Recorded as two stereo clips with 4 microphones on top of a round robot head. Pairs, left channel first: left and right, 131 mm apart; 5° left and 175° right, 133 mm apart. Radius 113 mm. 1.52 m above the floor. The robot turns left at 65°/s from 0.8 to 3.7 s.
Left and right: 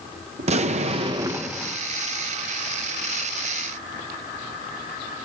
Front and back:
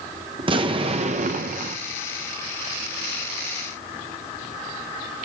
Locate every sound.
0.4 s an explosion: 125° right, 0.6 m; by 1.8 s 175° left, 0.6 m